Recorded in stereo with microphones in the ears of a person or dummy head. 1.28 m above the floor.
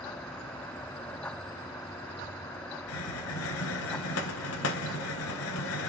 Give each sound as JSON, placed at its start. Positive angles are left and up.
{"t": 2.9, "sound": "a hiss", "side_deg": 80, "distance_m": 0.8}